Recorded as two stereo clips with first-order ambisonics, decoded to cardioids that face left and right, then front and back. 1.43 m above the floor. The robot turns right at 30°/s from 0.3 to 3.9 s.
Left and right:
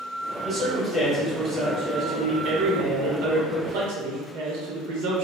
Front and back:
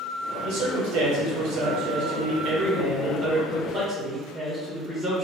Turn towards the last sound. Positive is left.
turn(degrees=-95)